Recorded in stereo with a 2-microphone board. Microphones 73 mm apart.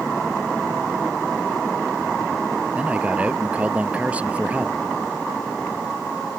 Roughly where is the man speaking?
Centre.